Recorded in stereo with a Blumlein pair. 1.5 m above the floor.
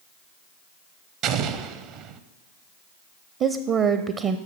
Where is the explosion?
35° right, 0.6 m.